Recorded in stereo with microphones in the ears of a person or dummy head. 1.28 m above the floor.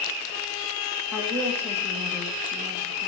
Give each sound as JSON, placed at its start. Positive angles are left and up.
{"t": 1.1, "sound": "a woman speaking", "side_deg": 0, "distance_m": 1.6}